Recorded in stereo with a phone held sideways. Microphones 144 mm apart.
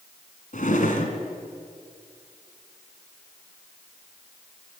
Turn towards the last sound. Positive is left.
turn(degrees=65)  # may be behind; listen again after turning